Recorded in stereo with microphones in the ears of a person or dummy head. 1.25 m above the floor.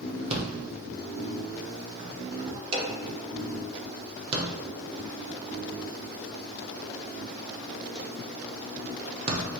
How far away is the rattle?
About 0.6 m.